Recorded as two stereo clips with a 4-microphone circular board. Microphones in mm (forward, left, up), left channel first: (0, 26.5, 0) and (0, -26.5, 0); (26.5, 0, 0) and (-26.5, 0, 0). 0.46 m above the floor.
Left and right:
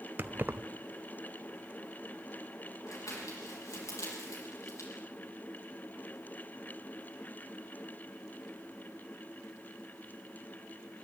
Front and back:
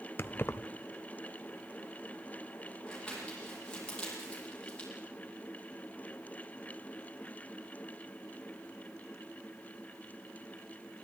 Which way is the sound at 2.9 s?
75° left.